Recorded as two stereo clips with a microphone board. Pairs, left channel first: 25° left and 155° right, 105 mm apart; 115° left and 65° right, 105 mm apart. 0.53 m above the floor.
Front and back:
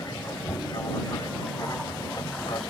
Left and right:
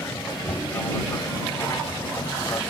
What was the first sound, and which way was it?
An aircraft, 60° left.